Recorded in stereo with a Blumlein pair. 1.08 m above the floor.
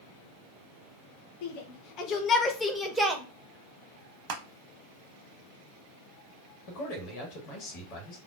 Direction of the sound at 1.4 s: 50° left.